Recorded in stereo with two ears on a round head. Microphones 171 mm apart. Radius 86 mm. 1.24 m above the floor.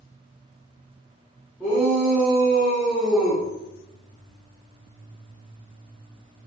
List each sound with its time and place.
1.6 s a shout: 10° left (ahead or behind), 3.5 m; by 3.4 s 5° right (ahead or behind), 4 m